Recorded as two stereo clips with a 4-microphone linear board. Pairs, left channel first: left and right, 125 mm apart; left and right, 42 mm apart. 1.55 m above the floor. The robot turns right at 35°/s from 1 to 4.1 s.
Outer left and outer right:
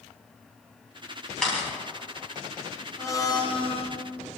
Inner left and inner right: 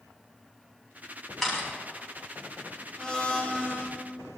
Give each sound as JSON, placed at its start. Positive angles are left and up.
{"t": 1.4, "sound": "a camera shutter", "side_deg": 5, "distance_m": 5.0}
{"t": 3.0, "sound": "a blender", "azimuth_deg": 20, "distance_m": 1.4}